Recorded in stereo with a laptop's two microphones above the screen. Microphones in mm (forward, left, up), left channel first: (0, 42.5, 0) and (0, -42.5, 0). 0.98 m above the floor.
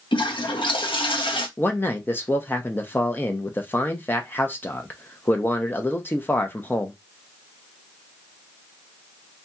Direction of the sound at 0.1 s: 75° left (ahead or behind).